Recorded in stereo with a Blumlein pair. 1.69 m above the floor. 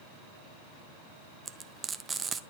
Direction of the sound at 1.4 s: 15° right.